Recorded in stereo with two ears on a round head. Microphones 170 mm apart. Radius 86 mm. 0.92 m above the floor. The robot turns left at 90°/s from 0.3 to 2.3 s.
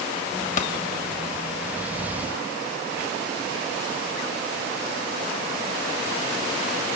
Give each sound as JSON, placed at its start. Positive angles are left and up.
{"t": 0.6, "sound": "a pop", "side_deg": 40, "distance_m": 1.2}